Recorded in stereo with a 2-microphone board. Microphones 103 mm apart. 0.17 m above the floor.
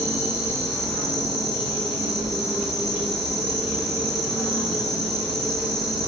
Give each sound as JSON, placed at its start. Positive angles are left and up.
{"t": 0.0, "sound": "an insect", "side_deg": 0, "distance_m": 1.0}